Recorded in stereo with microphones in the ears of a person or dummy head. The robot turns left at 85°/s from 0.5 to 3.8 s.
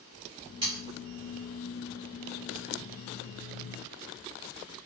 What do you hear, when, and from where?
0.6 s sawing: 25° right (ahead or behind), 1.7 m; by 0.8 s 10° right (ahead or behind), 1.7 m